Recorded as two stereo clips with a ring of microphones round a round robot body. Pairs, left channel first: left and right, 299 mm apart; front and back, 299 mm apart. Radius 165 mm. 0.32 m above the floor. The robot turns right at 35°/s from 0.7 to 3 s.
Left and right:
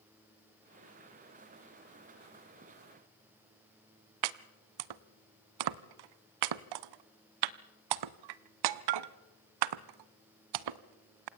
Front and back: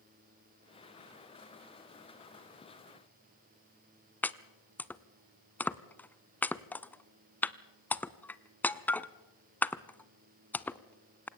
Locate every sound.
4.2 s chopping: 85° right, 0.6 m